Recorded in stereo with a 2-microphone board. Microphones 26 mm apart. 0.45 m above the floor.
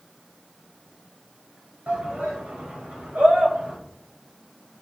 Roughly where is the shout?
Right.